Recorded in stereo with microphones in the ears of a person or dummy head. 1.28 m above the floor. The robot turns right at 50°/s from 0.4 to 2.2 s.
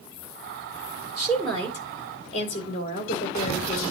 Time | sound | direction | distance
1.2 | a woman speaking | 10° right | 2.5 m